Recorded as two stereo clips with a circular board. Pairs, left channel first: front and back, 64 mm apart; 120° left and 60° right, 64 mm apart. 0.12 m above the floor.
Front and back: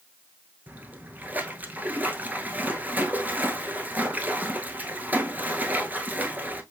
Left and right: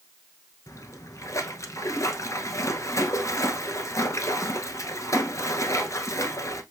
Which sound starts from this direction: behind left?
A splash, at 0.7 s.